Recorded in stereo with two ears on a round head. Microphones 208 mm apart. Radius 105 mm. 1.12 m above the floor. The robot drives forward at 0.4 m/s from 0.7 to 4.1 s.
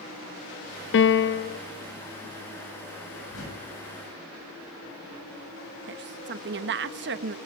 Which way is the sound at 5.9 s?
50° right (ahead or behind).